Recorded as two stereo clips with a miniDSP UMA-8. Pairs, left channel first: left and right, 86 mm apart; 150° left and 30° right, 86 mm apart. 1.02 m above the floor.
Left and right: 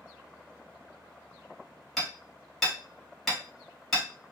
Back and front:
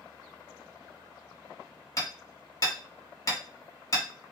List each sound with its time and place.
2.0 s hammering: 175° left, 1.0 m